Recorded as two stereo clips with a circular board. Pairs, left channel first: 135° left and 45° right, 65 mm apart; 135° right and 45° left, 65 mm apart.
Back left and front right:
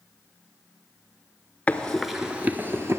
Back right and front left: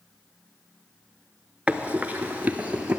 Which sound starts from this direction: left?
Running footsteps, at 1.7 s.